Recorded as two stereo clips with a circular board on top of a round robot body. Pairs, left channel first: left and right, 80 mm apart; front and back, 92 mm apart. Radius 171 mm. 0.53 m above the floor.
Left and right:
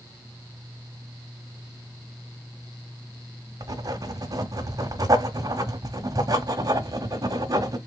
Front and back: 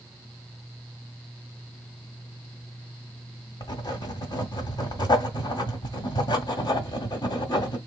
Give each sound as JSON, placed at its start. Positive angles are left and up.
{"t": 3.6, "sound": "writing", "azimuth_deg": -45, "distance_m": 1.4}